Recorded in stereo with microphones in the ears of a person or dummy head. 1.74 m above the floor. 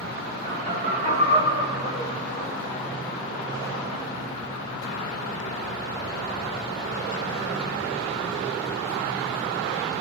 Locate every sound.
0.4 s laughter: 60° right (ahead or behind), 1.2 m; by 2.7 s 5° left (ahead or behind), 2 m